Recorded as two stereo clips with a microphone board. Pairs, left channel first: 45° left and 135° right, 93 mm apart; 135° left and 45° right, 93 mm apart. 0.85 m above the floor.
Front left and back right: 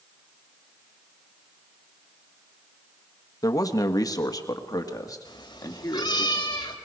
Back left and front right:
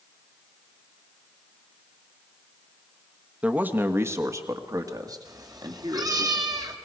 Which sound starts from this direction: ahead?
A cat meowing, at 5.2 s.